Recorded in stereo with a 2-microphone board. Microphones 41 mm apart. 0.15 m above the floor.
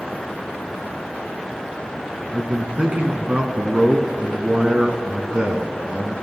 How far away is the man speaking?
About 1.3 m.